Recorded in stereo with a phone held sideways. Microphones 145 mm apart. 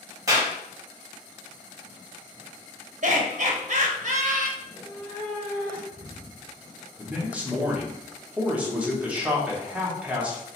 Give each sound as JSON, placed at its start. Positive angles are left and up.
{"t": 0.3, "sound": "a clap", "side_deg": -25, "distance_m": 1.6}
{"t": 3.0, "sound": "laughter", "side_deg": -55, "distance_m": 0.7}
{"t": 4.6, "sound": "a cat meowing", "side_deg": 5, "distance_m": 1.5}
{"t": 7.0, "sound": "a man speaking", "side_deg": -10, "distance_m": 1.0}